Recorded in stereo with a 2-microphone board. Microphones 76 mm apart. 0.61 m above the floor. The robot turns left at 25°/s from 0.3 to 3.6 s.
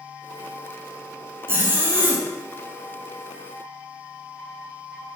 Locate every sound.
1.5 s a zipper: 30° right (ahead or behind), 0.6 m; by 2.3 s 25° right (ahead or behind), 0.6 m